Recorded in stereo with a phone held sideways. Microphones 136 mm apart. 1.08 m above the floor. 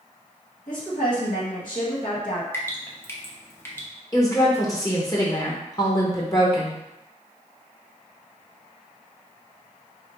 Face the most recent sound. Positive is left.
turn(degrees=25)  # may be behind; listen again after turning